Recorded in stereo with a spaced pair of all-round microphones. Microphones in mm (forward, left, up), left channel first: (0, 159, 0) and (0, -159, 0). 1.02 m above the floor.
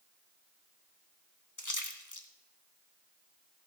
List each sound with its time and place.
1.6 s a splash: 65° left (ahead or behind), 1.3 m